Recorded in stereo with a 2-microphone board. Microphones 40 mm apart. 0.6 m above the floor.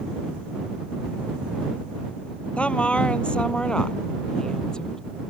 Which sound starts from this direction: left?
A woman speaking, at 2.6 s.